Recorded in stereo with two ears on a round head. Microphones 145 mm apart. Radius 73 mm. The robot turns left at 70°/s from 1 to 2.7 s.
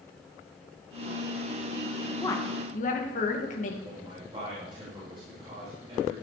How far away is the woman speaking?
About 2 m.